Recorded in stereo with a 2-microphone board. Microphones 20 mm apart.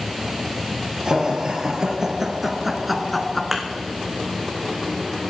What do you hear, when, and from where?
1.1 s laughter: 35° right (ahead or behind), 3.5 m; by 3.4 s 15° left (ahead or behind), 1.5 m
3.5 s a thud: 10° right (ahead or behind), 2.5 m